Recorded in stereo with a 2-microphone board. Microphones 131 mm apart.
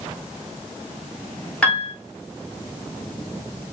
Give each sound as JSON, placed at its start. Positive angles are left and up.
{"t": 1.6, "sound": "a piano", "side_deg": 10, "distance_m": 1.3}